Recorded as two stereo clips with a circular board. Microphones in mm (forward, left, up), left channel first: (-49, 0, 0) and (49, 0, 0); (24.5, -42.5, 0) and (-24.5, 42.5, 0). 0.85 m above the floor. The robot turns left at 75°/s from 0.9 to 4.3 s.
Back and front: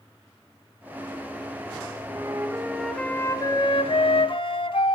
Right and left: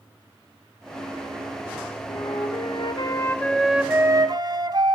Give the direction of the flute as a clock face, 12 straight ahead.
1 o'clock.